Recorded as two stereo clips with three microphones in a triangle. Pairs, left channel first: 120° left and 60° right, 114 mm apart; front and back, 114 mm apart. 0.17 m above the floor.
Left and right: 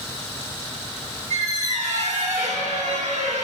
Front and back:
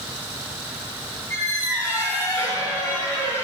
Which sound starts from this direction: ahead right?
A squeak, at 1.3 s.